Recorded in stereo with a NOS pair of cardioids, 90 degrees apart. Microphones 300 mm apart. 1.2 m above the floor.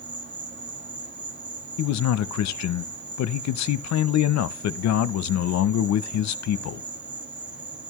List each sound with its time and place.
0.0 s an insect: 35° right, 1.8 m
1.8 s a man speaking: 65° left, 0.7 m